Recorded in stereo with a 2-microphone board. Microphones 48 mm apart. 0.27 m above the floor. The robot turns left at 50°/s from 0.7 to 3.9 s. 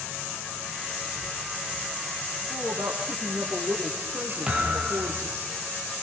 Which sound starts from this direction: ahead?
A woman speaking, at 2.5 s.